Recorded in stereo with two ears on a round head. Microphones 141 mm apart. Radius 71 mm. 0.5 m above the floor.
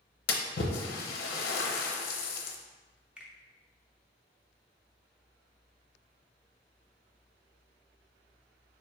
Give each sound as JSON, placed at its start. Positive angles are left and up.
{"t": 0.3, "sound": "a splash", "side_deg": 65, "distance_m": 0.6}
{"t": 3.2, "sound": "a finger snap", "side_deg": -5, "distance_m": 0.5}